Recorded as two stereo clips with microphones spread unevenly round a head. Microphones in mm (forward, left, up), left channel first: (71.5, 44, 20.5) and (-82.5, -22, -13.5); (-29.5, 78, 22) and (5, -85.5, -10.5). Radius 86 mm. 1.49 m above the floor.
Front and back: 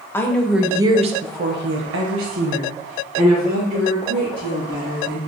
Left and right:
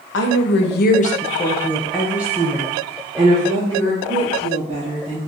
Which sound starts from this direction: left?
A woman speaking, at 0.1 s.